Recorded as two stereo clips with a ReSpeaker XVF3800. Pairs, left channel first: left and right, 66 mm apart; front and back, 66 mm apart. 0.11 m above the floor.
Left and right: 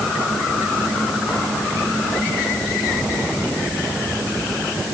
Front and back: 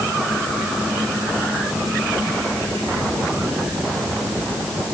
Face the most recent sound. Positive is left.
No sound to turn to.